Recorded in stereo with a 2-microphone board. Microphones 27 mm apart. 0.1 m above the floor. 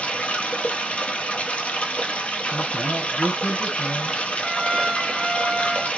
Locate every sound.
0.0 s running water: 55° left (ahead or behind), 1.1 m
2.5 s a man speaking: 35° left (ahead or behind), 1.6 m
4.4 s a trumpet: 10° left (ahead or behind), 1.7 m